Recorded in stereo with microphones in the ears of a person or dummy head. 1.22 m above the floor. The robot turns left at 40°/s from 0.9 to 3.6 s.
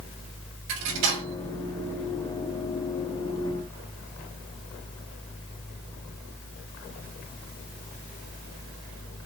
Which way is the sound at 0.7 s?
60° right (ahead or behind).